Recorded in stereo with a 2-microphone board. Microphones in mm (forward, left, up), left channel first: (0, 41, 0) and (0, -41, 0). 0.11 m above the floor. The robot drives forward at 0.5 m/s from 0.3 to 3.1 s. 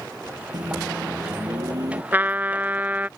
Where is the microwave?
55° right (ahead or behind); by 2.0 s 50° right (ahead or behind).